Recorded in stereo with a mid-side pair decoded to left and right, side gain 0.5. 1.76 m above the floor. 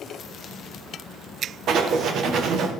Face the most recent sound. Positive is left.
turn(degrees=-60)